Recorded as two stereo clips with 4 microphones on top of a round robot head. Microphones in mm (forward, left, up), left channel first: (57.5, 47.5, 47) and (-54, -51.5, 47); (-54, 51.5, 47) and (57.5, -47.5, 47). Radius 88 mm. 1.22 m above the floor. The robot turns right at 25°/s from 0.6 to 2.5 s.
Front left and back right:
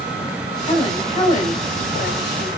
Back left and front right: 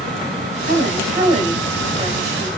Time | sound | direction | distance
0.7 | a woman speaking | 15° right | 2.5 m